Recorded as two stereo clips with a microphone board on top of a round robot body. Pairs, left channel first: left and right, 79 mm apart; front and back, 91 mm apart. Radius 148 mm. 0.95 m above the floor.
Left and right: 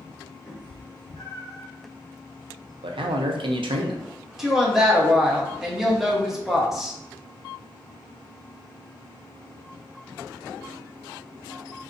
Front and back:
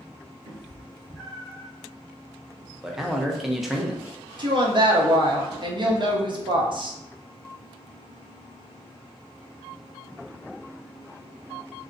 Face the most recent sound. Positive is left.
turn(degrees=-175)